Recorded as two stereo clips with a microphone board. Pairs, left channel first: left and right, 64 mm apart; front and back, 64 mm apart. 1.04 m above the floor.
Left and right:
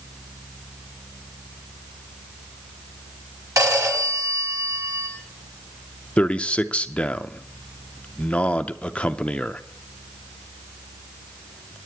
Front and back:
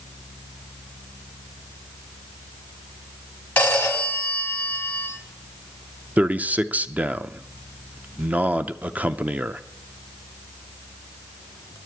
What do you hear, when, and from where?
3.6 s a phone ringing: 65° right, 4 m
6.2 s a man speaking: 140° left, 0.6 m